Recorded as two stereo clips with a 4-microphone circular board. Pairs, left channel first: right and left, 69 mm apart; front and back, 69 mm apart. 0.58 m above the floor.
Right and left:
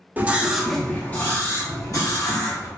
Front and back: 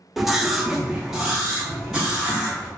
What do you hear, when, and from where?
0.2 s a scream: 95° left, 0.8 m; by 2.7 s 100° right, 1.5 m